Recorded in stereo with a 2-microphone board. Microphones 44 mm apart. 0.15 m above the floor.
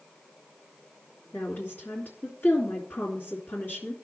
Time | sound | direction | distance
1.3 | a woman speaking | 50° left (ahead or behind) | 2.5 m